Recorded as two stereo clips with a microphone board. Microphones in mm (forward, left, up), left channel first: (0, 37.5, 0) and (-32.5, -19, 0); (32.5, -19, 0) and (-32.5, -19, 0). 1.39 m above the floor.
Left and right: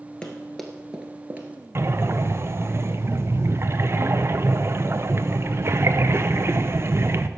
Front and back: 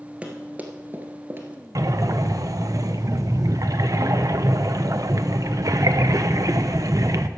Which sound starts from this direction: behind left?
Running footsteps, at 0.2 s.